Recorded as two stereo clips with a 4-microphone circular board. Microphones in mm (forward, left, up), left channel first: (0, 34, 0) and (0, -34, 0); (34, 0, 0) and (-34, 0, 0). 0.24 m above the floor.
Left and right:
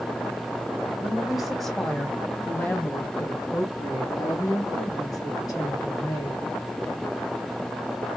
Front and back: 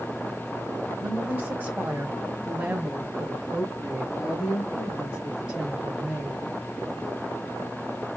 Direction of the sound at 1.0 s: 140° right.